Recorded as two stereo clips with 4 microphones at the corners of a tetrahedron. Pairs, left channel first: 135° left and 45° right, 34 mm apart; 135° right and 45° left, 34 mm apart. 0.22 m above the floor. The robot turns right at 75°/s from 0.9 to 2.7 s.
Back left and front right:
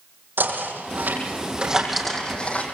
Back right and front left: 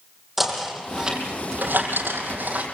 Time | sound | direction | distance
0.4 | knocking | 40° right | 6.5 m